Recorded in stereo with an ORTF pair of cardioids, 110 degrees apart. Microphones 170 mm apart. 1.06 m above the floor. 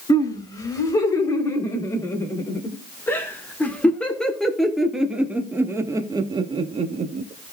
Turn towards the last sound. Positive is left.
turn(degrees=-55)